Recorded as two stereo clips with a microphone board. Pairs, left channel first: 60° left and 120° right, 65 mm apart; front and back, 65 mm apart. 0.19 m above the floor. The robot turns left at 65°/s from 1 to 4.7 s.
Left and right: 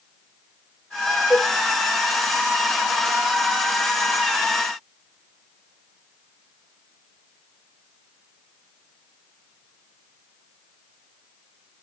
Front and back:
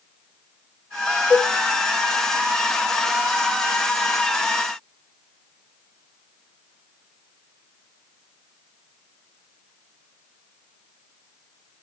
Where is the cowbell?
15° right, 2.5 m; by 1.5 s 35° right, 2.5 m.